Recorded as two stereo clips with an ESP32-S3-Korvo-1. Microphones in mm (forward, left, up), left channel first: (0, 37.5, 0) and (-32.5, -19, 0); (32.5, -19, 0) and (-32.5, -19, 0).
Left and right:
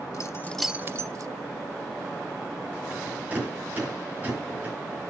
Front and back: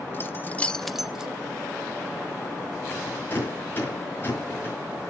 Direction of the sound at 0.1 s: 50° left.